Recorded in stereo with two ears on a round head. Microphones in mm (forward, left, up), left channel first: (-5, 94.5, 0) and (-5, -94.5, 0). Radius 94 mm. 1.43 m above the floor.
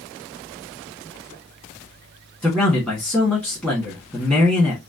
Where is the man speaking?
5° left (ahead or behind), 1.5 m.